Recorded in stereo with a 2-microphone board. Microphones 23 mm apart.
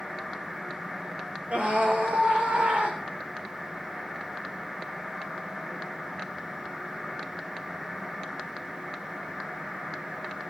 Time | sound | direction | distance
1.5 | a scream | 80° right | 8.5 m